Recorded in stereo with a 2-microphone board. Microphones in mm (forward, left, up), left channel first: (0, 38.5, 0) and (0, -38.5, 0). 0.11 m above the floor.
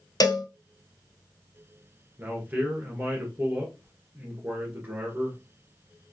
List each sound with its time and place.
0.2 s a cowbell: 55° left (ahead or behind), 0.6 m
2.2 s a man speaking: 25° right (ahead or behind), 1.3 m